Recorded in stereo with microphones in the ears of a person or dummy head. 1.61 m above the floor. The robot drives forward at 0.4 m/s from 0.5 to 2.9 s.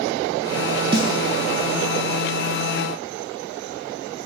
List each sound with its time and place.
0.9 s a snare drum: 30° right (ahead or behind), 0.8 m